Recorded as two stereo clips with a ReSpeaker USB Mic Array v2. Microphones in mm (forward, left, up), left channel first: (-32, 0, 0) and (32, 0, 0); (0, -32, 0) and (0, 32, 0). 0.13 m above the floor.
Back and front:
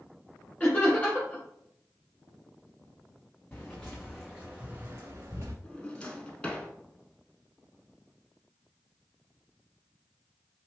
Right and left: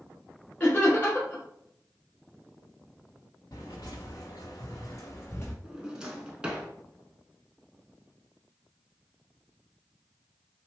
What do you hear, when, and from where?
0.6 s laughter: 135° right, 1.4 m
3.5 s footsteps: 110° right, 0.9 m; by 5.5 s 35° right, 0.8 m
5.6 s a drawer: 140° left, 0.6 m